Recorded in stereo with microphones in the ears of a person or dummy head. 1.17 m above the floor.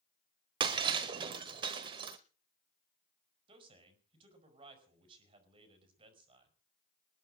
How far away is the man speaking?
About 5.5 m.